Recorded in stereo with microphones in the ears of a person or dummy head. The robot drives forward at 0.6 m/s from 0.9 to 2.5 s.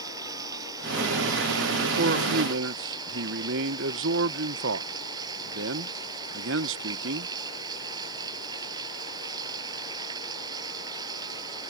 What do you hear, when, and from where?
0.0 s running water: 25° right (ahead or behind)
2.0 s a man speaking: 55° right (ahead or behind); by 7.3 s 65° right (ahead or behind)